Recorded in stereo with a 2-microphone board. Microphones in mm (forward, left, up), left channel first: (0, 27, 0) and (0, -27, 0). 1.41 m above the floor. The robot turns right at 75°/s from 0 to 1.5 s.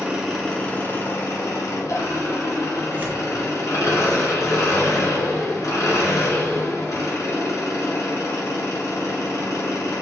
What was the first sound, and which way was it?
An engine running, 20° right.